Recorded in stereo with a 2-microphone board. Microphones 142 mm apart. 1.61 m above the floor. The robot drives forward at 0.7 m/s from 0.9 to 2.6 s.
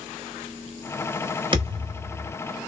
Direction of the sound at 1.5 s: 35° right (ahead or behind).